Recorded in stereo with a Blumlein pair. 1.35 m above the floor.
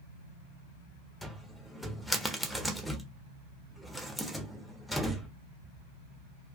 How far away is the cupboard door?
About 0.5 m.